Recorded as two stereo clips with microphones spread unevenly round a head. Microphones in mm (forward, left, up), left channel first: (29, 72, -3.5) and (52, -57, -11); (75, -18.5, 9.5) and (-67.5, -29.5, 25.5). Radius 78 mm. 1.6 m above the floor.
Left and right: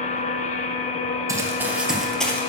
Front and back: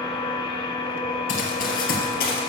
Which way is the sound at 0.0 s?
70° left.